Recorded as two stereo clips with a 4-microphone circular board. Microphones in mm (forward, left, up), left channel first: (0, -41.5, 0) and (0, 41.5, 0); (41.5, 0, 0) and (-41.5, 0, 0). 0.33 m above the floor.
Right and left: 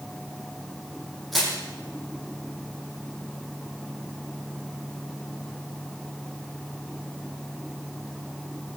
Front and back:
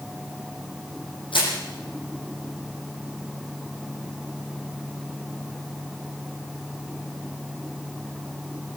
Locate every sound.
1.3 s crushing: straight ahead, 8.5 m